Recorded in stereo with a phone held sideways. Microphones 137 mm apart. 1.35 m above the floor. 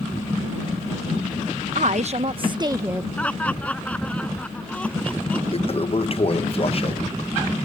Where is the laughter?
10° left (ahead or behind).